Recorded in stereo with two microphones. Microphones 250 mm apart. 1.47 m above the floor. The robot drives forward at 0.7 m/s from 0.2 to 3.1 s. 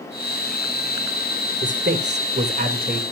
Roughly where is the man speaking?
Right.